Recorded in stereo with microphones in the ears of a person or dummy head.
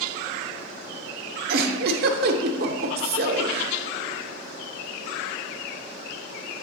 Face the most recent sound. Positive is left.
turn(degrees=-60)  # may be behind; listen again after turning